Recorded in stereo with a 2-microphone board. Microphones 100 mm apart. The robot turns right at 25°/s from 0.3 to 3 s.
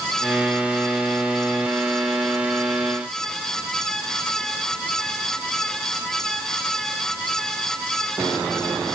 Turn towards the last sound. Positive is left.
No sound to turn to.